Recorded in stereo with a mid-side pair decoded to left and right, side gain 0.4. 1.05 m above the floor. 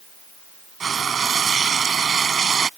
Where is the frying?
50° right.